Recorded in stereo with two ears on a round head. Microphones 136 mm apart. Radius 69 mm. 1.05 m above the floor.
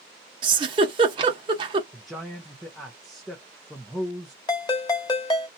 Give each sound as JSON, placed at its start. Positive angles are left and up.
{"t": 0.4, "sound": "a giggle", "side_deg": -30, "distance_m": 0.8}
{"t": 1.9, "sound": "a man speaking", "side_deg": 0, "distance_m": 0.5}
{"t": 4.5, "sound": "a ringtone", "side_deg": 25, "distance_m": 1.0}